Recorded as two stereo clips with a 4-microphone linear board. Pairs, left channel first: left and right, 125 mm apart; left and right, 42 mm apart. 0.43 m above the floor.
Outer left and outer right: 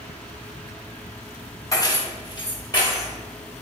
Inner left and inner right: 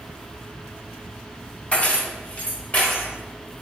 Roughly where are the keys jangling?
Left.